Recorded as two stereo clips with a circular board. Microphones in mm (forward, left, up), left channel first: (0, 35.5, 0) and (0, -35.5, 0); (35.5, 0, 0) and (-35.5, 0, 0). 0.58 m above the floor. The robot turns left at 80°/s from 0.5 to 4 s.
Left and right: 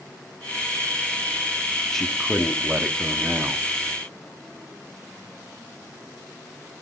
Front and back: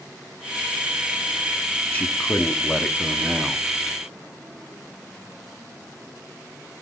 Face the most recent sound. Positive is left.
turn(degrees=-150)